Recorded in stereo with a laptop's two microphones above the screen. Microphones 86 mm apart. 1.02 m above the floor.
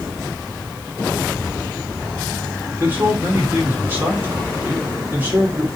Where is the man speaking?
25° right (ahead or behind), 2.5 m.